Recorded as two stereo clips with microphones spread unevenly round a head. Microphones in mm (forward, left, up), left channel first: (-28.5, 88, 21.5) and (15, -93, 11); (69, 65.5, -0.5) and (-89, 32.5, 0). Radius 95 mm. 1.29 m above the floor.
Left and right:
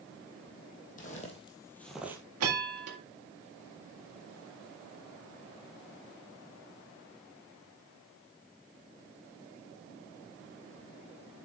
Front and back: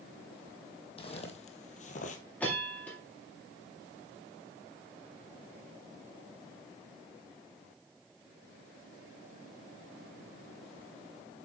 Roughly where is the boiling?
I don't hear boiling.